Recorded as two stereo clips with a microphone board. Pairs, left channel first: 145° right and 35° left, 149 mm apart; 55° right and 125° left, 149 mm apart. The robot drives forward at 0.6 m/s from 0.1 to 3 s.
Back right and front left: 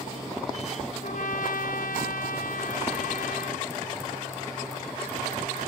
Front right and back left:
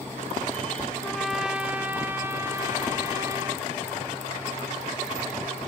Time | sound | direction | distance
1.0 | a trumpet | 140° right | 0.7 m